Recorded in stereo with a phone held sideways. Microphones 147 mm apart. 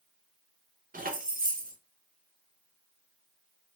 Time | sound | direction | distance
0.9 | keys jangling | 70° right (ahead or behind) | 0.6 m